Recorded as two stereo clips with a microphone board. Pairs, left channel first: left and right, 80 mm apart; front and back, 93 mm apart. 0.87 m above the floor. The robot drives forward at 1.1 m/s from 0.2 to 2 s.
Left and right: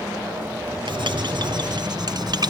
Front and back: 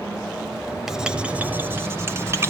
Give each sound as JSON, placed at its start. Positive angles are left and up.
{"t": 0.9, "sound": "writing", "azimuth_deg": -90, "distance_m": 2.5}